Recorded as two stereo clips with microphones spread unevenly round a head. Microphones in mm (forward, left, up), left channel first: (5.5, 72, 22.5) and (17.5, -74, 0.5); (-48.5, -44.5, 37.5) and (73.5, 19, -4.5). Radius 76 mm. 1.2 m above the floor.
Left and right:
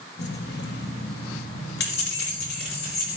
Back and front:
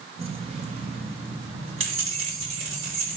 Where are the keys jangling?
80° left, 1.2 m.